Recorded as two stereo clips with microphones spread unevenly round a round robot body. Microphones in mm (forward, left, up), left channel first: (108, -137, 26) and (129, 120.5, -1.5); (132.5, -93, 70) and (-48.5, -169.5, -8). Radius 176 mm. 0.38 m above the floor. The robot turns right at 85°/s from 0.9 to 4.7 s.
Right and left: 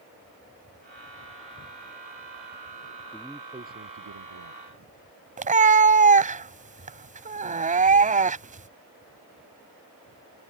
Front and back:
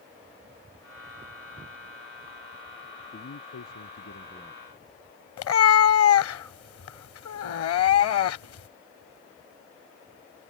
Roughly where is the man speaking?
Ahead.